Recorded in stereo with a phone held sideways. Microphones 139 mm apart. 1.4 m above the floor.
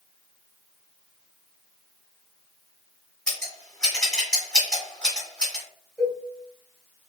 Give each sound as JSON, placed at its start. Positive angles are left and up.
{"t": 3.3, "sound": "scissors", "side_deg": 10, "distance_m": 1.4}
{"t": 6.0, "sound": "a cowbell", "side_deg": 15, "distance_m": 1.4}